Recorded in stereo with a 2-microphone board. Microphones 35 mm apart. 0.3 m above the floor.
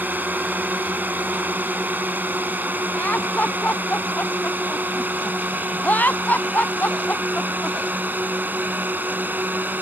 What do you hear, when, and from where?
0.0 s a drone: 60° right (ahead or behind)
3.0 s laughter: 55° left (ahead or behind)